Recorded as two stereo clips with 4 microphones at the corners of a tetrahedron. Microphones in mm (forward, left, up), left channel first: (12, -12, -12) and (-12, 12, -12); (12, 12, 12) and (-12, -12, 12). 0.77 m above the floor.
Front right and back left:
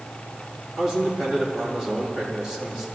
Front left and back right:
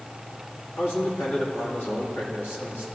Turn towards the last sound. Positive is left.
turn(degrees=55)